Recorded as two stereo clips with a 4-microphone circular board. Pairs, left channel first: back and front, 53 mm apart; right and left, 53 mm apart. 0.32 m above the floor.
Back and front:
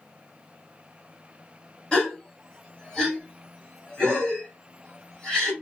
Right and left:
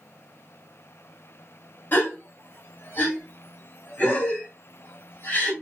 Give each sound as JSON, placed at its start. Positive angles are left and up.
{"t": 1.9, "sound": "a gasp", "azimuth_deg": -115, "distance_m": 1.5}